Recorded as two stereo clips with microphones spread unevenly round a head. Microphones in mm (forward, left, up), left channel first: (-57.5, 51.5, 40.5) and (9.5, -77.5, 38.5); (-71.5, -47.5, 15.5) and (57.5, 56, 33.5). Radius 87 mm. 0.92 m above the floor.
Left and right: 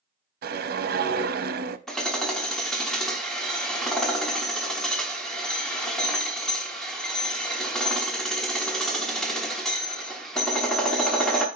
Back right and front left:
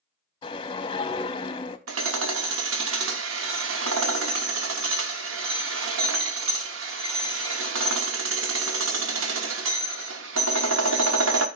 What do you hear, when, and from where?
0.4 s a whoosh: 75° right, 0.6 m
1.9 s hammering: 30° left, 0.9 m